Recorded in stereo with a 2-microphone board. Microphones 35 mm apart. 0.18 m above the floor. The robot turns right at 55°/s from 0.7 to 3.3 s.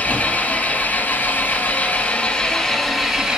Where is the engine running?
50° left, 2.5 m; by 3.4 s 165° right, 2.5 m.